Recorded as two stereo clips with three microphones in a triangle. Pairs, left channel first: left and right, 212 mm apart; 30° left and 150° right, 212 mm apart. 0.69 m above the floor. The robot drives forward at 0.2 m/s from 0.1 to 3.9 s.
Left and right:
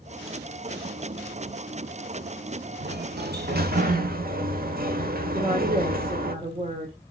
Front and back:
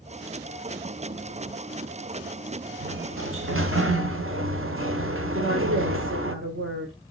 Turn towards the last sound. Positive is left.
turn(degrees=-150)